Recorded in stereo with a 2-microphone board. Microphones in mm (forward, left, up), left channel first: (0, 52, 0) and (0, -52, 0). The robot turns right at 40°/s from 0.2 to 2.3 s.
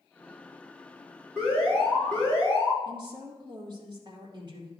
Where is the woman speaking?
45° right (ahead or behind), 2.5 m.